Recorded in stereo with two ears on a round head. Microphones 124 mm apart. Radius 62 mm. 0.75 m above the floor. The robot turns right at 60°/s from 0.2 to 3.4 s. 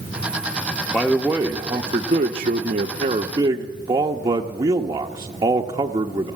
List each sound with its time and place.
0.9 s a man speaking: 165° left, 0.9 m; by 6.4 s 45° right, 0.9 m